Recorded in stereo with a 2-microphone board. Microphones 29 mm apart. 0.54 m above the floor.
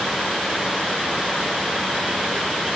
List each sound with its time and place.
Only background noise.